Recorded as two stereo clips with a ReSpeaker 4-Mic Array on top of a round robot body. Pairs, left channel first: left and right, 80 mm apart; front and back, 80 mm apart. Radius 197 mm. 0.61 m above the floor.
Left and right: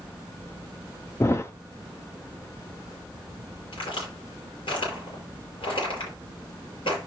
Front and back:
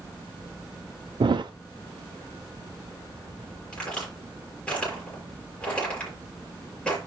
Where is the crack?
80° left, 6.5 m.